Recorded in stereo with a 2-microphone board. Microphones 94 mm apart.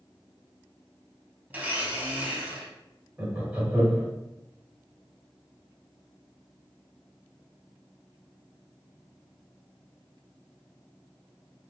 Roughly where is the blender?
Centre.